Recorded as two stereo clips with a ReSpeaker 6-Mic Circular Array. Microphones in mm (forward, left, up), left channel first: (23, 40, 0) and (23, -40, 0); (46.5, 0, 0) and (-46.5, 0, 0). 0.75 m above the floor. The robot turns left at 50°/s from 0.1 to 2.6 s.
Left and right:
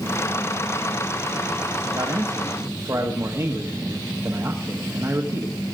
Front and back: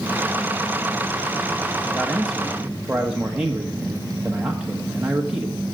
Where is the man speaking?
70° right, 1.1 m; by 5.6 s 105° right, 1.1 m.